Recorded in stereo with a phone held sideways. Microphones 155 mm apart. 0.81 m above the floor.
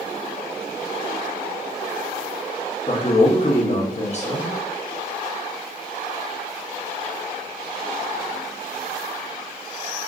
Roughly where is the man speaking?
Left.